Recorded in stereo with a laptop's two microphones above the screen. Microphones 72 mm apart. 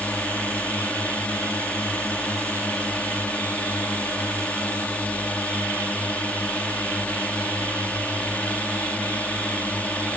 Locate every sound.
0.0 s a drone: 20° left (ahead or behind)